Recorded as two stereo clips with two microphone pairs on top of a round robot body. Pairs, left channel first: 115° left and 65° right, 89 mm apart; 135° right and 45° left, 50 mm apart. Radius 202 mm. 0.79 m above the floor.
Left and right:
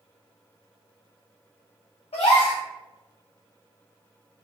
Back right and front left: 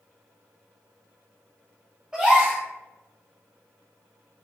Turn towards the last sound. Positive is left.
turn(degrees=125)